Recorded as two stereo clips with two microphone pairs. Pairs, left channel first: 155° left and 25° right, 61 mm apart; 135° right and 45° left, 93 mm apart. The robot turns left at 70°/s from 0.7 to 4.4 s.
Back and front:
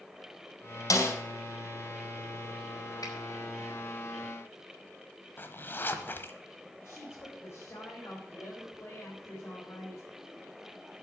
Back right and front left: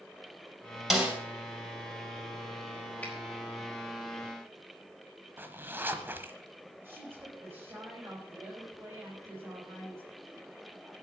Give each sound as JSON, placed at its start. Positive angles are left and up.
{"t": 0.9, "sound": "a snare drum", "azimuth_deg": 135, "distance_m": 3.0}
{"t": 3.0, "sound": "a finger snap", "azimuth_deg": 155, "distance_m": 4.0}
{"t": 5.4, "sound": "a zipper", "azimuth_deg": 110, "distance_m": 1.1}
{"t": 6.8, "sound": "a woman speaking", "azimuth_deg": 115, "distance_m": 4.5}